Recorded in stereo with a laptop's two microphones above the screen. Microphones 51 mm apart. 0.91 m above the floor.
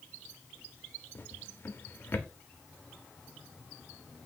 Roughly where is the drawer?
Left.